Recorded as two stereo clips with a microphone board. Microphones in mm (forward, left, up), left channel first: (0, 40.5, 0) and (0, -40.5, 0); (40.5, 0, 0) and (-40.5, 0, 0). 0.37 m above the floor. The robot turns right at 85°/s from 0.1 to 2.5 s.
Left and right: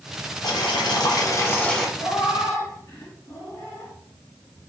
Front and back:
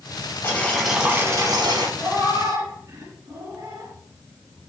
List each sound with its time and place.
0.4 s boiling: 55° left, 0.5 m; by 1.9 s straight behind, 0.5 m
2.0 s a cat meowing: 105° left, 1.3 m; by 3.9 s 150° left, 1.3 m